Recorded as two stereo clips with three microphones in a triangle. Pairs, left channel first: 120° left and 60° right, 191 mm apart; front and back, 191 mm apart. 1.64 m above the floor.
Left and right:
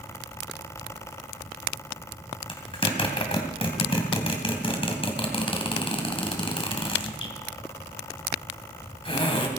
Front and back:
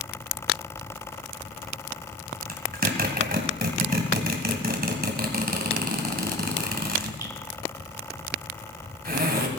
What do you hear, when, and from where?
2.5 s a zipper: 175° left, 2.5 m